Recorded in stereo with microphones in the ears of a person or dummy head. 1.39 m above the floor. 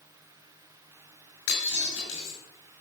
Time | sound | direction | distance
1.5 | breaking glass | 80° left | 8 m